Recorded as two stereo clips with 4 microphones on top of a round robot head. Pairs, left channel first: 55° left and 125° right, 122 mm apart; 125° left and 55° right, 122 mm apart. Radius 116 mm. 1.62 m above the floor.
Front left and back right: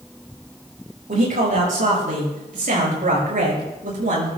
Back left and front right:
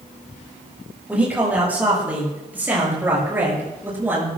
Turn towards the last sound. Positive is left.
turn(degrees=-130)